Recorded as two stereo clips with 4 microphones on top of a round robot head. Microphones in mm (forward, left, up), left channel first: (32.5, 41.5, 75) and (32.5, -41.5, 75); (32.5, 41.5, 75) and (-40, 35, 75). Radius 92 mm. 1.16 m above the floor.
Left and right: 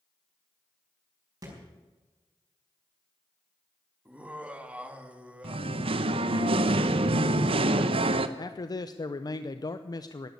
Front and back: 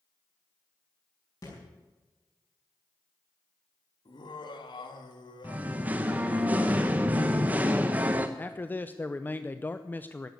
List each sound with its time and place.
1.4 s a thud: 40° right, 4.5 m
4.0 s laughter: 15° right, 1.7 m
5.4 s singing: 100° right, 0.7 m
8.4 s a man speaking: 65° left, 0.7 m